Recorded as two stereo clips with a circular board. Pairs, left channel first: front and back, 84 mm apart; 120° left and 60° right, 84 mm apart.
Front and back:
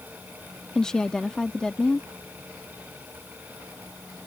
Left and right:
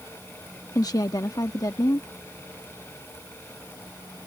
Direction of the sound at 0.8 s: 80° left.